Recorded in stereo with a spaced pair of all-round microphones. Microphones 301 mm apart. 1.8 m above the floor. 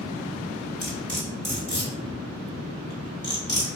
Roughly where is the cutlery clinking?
Left.